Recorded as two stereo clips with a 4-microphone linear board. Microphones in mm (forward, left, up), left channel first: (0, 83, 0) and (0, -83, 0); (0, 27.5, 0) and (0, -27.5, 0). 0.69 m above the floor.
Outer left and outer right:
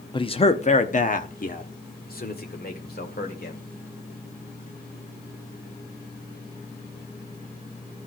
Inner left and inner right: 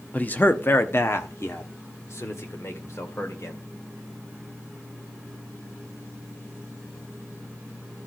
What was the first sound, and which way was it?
A man speaking, 30° left (ahead or behind).